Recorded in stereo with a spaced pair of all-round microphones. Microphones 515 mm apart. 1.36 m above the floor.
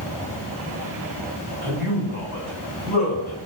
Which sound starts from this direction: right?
A man speaking, at 1.6 s.